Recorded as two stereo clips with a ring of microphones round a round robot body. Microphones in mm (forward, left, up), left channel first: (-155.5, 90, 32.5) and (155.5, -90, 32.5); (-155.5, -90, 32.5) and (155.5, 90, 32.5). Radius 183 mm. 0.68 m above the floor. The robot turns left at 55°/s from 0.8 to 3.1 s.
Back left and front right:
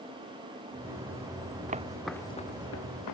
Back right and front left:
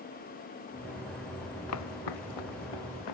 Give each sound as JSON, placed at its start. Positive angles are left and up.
{"t": 1.7, "sound": "footsteps", "azimuth_deg": -100}